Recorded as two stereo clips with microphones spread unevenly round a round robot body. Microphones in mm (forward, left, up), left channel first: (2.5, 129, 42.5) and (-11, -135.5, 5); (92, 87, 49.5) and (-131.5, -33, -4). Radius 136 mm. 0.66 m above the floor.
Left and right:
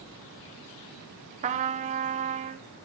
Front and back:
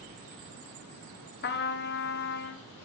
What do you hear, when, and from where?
1.4 s a trumpet: 30° right, 0.5 m